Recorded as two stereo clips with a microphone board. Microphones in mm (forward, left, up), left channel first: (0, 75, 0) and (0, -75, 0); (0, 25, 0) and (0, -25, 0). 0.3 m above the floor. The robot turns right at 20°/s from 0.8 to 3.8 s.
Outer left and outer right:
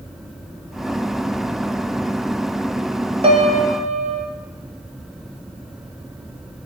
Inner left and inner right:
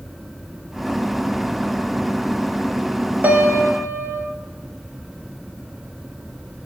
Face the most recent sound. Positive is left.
turn(degrees=-45)  # may be behind; listen again after turning